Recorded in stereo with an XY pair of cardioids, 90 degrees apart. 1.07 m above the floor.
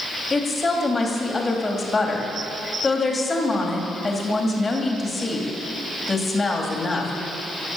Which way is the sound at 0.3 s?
30° left.